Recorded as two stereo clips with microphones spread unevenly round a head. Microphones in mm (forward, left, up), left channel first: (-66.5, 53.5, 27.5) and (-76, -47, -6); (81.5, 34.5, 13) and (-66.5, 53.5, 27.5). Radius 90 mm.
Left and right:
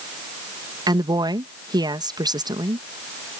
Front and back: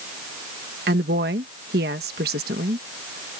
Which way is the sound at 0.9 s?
145° right.